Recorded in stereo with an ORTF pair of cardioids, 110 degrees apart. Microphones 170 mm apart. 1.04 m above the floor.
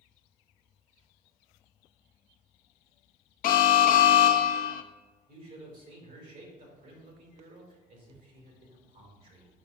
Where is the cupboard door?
I don't hear a cupboard door.